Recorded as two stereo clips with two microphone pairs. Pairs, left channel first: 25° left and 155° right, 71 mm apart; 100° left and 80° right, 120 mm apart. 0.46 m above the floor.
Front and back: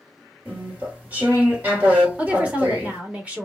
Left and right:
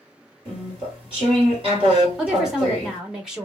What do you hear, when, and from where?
0.5 s chewing: 95° right, 1.5 m
2.2 s a woman speaking: 160° right, 1.0 m